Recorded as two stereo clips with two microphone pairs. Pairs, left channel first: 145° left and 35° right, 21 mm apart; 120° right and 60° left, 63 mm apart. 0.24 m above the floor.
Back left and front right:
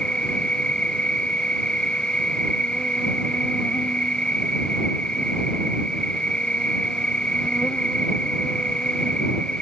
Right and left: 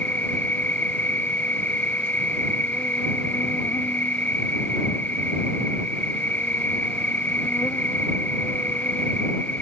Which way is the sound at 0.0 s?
Straight behind.